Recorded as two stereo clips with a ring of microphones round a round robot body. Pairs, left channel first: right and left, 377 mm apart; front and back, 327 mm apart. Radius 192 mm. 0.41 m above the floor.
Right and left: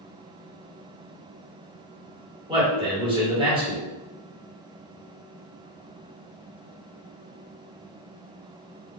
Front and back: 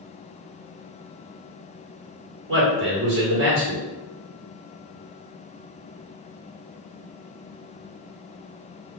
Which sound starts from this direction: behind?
A man speaking, at 2.5 s.